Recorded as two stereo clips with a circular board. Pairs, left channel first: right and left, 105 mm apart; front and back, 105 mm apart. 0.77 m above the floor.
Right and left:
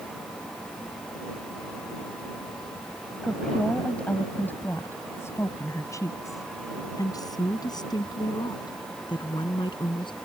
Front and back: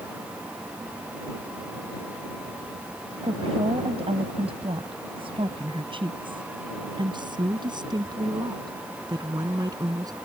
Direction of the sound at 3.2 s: 175° right.